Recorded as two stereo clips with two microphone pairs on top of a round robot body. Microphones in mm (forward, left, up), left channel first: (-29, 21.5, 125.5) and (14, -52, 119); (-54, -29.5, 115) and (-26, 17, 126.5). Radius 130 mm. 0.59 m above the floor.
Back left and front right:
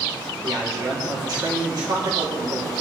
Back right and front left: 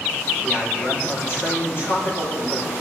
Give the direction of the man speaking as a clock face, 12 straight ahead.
3 o'clock.